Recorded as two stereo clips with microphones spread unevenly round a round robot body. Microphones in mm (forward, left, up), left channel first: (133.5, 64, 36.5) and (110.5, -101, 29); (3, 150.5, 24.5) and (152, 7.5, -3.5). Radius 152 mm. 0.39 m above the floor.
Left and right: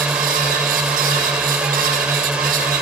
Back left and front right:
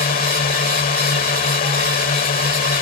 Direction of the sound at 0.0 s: Straight behind.